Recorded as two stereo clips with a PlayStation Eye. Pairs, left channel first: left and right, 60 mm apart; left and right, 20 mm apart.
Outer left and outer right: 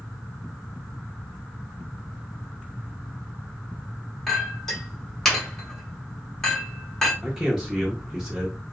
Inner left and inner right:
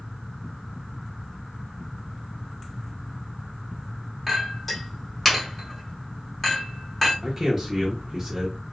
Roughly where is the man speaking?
Centre.